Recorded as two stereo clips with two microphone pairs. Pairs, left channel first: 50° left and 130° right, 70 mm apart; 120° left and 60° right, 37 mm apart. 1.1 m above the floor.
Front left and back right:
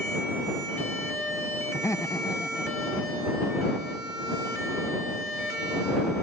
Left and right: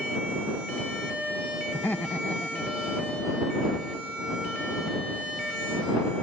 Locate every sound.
1.7 s laughter: 110° left; by 4.1 s 60° left